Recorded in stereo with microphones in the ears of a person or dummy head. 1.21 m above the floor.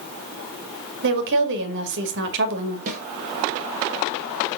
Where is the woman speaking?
65° right (ahead or behind), 2 m.